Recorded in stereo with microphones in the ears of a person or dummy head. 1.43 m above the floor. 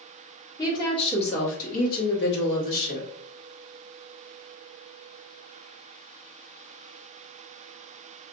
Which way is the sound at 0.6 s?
25° left (ahead or behind).